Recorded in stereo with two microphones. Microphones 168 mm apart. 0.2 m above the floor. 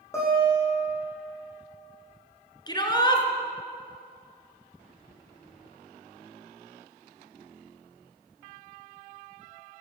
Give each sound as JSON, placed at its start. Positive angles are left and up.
{"t": 0.1, "sound": "a guitar", "side_deg": 15, "distance_m": 7.5}
{"t": 2.7, "sound": "a shout", "side_deg": 25, "distance_m": 2.5}